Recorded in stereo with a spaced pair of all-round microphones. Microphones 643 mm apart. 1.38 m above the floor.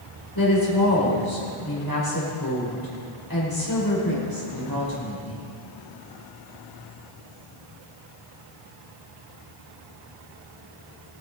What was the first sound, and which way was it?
A woman speaking, 30° left (ahead or behind).